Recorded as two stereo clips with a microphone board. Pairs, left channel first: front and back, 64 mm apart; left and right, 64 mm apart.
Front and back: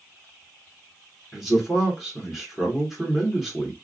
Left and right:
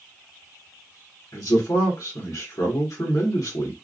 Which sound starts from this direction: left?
A man speaking, at 1.3 s.